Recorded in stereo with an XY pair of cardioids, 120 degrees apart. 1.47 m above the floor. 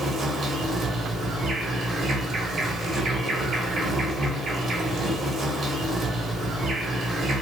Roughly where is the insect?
Ahead right.